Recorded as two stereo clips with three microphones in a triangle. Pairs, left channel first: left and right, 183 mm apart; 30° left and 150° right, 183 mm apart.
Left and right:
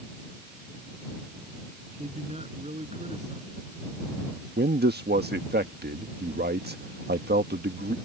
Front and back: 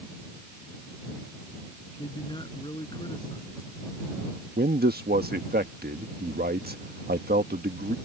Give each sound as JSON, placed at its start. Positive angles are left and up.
{"t": 2.0, "sound": "a man speaking", "azimuth_deg": -35}
{"t": 4.6, "sound": "a man speaking", "azimuth_deg": -120}